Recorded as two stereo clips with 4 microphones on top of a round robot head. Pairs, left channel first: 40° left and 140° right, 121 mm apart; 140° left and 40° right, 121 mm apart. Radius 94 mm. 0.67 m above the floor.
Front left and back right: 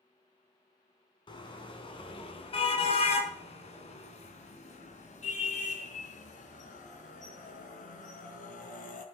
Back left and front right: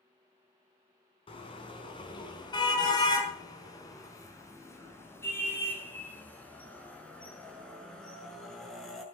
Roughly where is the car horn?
Left.